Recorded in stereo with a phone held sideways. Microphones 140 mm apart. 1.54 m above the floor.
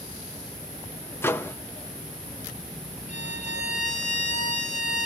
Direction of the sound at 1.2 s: 15° left (ahead or behind).